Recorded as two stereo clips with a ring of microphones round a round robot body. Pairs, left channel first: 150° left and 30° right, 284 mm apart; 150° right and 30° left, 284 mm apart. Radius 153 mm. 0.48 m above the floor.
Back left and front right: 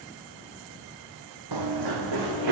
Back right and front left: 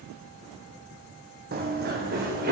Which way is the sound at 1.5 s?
25° right.